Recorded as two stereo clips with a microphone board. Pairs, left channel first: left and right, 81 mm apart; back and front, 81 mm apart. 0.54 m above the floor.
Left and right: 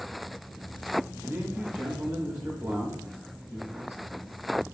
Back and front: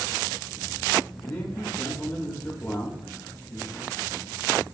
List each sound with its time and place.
1.2 s a man speaking: 155° right, 0.9 m